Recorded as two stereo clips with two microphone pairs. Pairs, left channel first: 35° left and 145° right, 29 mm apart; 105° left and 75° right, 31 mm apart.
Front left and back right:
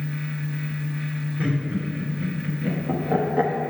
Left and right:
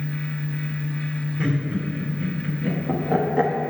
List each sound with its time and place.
1.4 s laughter: 140° right, 2 m